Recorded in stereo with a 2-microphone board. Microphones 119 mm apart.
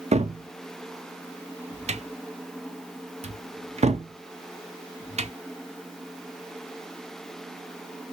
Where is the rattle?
No rattle in this recording.